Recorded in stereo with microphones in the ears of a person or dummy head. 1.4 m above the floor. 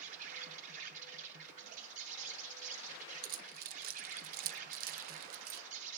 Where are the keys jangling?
55° right (ahead or behind), 0.7 m.